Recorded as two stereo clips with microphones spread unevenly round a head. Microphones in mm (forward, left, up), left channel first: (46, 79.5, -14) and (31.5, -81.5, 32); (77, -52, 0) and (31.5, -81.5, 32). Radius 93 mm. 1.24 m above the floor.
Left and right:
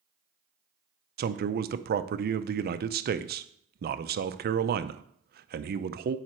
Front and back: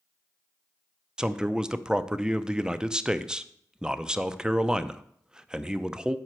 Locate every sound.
1.2 s a man speaking: 65° right, 0.6 m